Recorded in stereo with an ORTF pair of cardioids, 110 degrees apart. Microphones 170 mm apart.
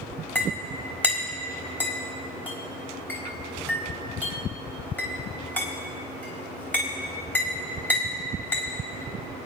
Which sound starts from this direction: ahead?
A clink, at 0.3 s.